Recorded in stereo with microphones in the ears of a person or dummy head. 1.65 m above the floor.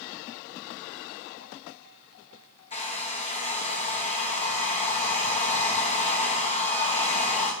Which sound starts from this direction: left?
A hair dryer, at 2.7 s.